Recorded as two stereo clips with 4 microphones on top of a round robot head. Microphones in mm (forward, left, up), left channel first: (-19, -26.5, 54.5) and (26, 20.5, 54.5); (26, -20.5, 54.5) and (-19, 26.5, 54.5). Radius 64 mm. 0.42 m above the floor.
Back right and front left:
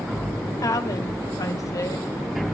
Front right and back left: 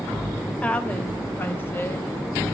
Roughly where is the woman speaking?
Behind right.